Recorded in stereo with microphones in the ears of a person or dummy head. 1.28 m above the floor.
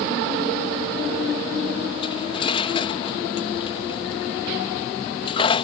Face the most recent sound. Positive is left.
turn(degrees=30)  # may be behind; listen again after turning